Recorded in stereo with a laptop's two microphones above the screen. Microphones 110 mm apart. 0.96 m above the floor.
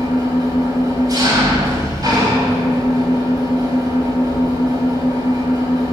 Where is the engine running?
40° right (ahead or behind), 3.5 m.